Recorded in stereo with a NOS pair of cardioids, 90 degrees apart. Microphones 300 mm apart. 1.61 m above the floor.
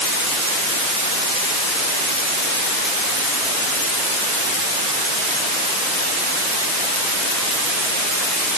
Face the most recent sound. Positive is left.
No sound to turn to.